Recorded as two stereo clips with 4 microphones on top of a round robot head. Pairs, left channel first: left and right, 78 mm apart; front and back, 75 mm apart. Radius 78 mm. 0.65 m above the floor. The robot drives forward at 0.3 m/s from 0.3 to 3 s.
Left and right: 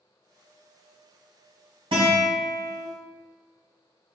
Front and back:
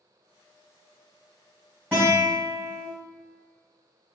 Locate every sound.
1.9 s a guitar: 110° right, 1.6 m; by 2.9 s 115° right, 1.7 m